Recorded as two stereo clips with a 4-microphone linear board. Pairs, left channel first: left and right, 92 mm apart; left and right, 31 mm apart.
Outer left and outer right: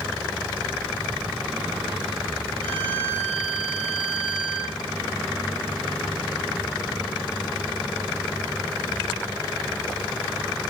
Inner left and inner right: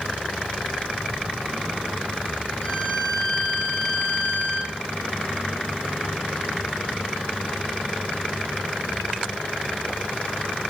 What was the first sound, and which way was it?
A violin, 70° left (ahead or behind).